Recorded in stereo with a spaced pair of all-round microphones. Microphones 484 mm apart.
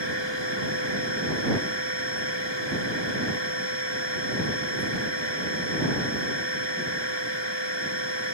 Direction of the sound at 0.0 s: 60° left (ahead or behind).